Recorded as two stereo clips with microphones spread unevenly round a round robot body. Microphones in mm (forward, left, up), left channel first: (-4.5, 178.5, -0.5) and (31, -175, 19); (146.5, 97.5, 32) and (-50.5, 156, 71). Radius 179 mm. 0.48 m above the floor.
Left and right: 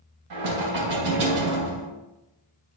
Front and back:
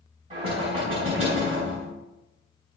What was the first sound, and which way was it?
Knocking, 125° right.